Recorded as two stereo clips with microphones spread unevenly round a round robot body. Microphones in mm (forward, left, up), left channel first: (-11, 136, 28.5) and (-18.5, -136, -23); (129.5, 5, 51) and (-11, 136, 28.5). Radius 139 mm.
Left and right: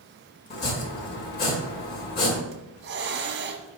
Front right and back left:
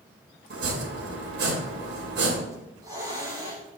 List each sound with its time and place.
0.5 s chopping: 145° left, 2.5 m
2.5 s a hiss: 145° right, 1.1 m